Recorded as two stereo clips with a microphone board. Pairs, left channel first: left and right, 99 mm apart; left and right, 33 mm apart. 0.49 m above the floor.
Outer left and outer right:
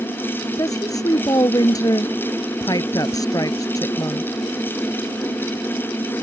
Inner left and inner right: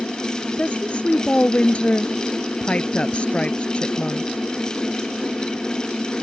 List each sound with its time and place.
0.6 s a woman speaking: 35° left (ahead or behind)